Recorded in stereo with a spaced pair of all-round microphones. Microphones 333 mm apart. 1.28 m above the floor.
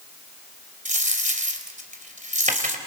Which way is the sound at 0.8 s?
20° right (ahead or behind).